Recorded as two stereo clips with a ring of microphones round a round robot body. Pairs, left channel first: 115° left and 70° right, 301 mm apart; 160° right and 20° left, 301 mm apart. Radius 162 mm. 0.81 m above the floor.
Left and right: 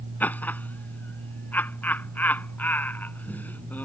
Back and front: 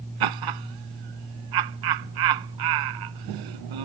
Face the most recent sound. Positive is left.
turn(degrees=30)